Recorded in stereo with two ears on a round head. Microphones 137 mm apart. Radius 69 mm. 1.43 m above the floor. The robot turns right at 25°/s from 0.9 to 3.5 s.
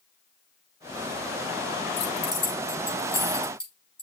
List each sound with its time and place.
2.0 s keys jangling: 45° left (ahead or behind), 4.5 m; by 4.0 s 5° left (ahead or behind), 4.5 m